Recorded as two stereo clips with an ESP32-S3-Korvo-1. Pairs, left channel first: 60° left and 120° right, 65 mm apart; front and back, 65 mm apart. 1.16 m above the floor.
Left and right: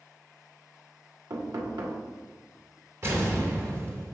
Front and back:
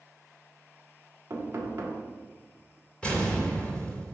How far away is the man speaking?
I don't hear a man speaking.